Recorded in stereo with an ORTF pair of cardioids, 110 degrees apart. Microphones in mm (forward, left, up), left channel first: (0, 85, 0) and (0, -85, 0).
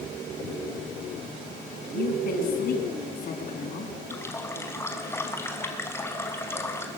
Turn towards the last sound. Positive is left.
turn(degrees=15)